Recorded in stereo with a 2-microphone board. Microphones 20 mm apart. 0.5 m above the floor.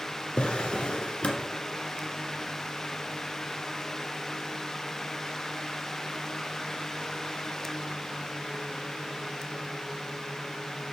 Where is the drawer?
60° left (ahead or behind), 1.6 m.